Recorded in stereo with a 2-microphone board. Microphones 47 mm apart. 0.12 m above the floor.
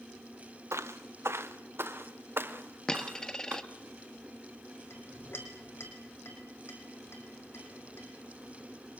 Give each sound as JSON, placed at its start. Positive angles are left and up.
{"t": 0.7, "sound": "footsteps", "side_deg": -80, "distance_m": 1.6}
{"t": 2.9, "sound": "a dropped coin", "side_deg": 15, "distance_m": 1.2}
{"t": 4.9, "sound": "a clink", "side_deg": 60, "distance_m": 5.0}